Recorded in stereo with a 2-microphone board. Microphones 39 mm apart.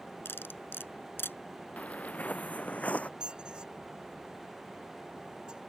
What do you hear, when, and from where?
0.2 s cutlery clinking: 80° left
1.8 s footsteps: 40° left (ahead or behind)
3.2 s a squeak: 25° right (ahead or behind)